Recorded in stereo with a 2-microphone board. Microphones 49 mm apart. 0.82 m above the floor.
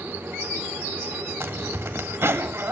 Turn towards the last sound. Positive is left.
turn(degrees=-60)  # may be behind; listen again after turning